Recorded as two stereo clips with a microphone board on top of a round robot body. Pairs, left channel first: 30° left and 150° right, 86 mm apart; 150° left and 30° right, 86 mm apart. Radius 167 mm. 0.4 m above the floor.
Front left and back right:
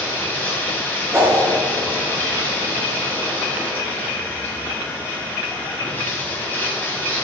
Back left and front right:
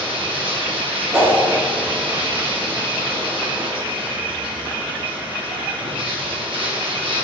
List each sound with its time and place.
0.0 s running water: 35° right, 2.5 m
1.1 s a whoosh: 90° right, 3 m